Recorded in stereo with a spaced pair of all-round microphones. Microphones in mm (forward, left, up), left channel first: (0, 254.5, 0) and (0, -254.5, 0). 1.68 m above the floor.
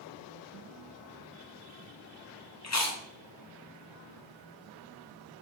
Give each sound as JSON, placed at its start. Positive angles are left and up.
{"t": 2.6, "sound": "chewing", "side_deg": 35, "distance_m": 0.6}